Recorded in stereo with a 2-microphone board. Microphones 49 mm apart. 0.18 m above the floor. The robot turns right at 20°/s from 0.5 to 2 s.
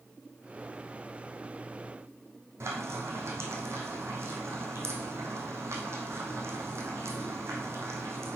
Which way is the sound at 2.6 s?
65° right (ahead or behind).